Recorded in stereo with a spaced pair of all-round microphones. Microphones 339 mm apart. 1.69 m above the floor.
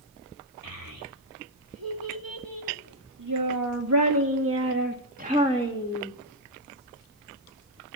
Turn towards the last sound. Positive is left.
turn(degrees=-5)  # may be behind; listen again after turning